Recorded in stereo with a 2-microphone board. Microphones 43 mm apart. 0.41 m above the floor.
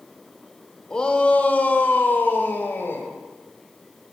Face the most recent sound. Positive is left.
turn(degrees=50)  # may be behind; listen again after turning